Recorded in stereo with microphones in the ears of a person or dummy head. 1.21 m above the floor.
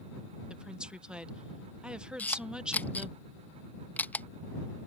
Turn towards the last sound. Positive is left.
turn(degrees=10)  # may be behind; listen again after turning